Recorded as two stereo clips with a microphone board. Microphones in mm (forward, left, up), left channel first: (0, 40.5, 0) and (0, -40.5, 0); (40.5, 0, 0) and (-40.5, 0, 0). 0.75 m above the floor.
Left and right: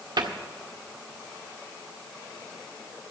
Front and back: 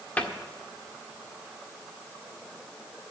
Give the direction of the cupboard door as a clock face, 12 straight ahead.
2 o'clock.